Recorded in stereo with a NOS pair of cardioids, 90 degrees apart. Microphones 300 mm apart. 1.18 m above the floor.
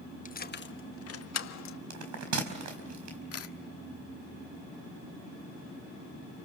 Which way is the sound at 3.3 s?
50° left.